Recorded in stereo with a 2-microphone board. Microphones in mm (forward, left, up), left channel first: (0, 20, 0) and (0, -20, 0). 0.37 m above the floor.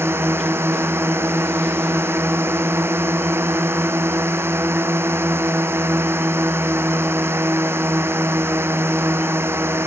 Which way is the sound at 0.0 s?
85° right.